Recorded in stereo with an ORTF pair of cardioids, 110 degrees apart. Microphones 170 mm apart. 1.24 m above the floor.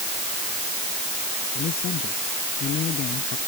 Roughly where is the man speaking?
Ahead left.